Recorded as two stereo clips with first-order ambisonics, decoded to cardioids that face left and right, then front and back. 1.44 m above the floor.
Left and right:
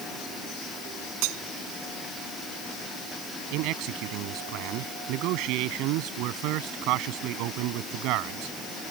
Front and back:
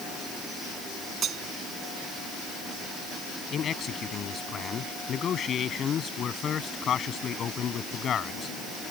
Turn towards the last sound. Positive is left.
turn(degrees=-60)